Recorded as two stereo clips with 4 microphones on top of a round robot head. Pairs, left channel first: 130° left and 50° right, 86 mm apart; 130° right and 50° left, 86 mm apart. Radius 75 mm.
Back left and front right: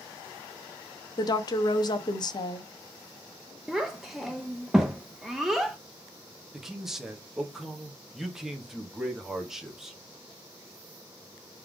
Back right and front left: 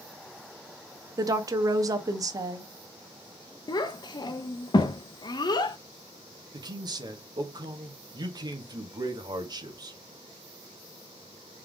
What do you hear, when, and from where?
1.2 s a woman speaking: 95° left, 0.9 m
3.7 s a child speaking: 135° right, 0.7 m
6.5 s a man speaking: 35° left, 1.2 m